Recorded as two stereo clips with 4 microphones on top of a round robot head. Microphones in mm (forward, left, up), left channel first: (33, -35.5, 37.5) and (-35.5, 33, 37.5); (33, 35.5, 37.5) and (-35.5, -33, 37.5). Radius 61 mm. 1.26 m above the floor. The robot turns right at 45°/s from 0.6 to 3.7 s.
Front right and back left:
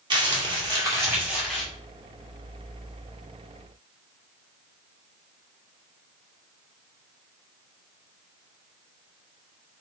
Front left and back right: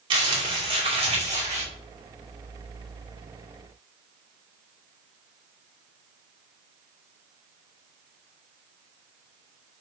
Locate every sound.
0.1 s crumpling: straight behind, 2 m; by 1.6 s 130° right, 2 m